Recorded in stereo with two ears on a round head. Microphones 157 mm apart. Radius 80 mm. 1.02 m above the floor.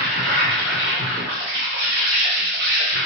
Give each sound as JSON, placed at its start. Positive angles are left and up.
{"t": 0.0, "sound": "an insect", "side_deg": -65, "distance_m": 1.4}